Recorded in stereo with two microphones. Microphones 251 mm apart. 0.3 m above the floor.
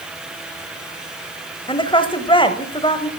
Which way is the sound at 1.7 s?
20° left (ahead or behind).